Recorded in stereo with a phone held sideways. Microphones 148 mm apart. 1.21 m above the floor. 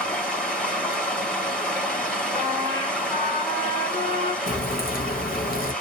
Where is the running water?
5° left (ahead or behind), 1.3 m.